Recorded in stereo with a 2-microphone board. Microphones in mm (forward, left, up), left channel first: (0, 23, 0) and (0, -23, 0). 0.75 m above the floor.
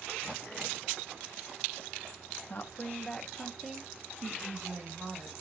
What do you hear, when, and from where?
2.5 s a woman speaking: 45° left (ahead or behind), 1.1 m; by 5.3 s 40° right (ahead or behind), 1.8 m